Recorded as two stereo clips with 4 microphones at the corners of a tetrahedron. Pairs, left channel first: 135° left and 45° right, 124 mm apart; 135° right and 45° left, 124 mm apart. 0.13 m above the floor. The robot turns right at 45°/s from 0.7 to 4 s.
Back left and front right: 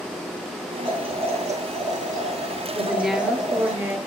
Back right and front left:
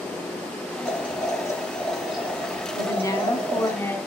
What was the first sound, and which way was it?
Boiling, 95° right.